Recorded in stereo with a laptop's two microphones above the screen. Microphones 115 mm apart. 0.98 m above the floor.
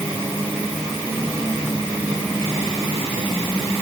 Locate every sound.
Only background noise.